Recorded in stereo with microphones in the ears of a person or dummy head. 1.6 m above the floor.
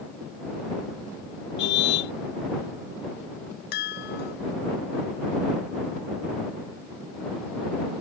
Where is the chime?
55° left (ahead or behind).